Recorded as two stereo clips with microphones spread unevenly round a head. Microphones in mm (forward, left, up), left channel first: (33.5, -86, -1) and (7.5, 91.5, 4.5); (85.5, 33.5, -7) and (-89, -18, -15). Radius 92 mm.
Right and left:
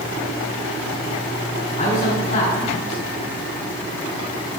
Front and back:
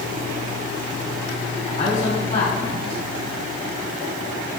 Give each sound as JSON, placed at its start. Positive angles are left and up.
{"t": 1.8, "sound": "a man speaking", "azimuth_deg": -35, "distance_m": 5.0}